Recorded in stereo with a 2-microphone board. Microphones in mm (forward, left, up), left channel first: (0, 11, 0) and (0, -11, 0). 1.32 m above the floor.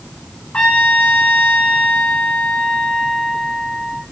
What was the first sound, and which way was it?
A trumpet, 70° left (ahead or behind).